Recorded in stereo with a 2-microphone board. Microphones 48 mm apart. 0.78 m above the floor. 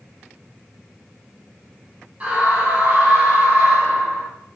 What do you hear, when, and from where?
2.2 s a scream: 25° right (ahead or behind), 5 m